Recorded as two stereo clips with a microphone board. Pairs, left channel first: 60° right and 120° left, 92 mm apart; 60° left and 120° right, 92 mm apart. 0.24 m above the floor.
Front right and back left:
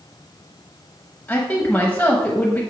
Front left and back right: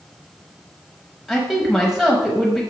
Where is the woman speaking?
35° right, 0.9 m.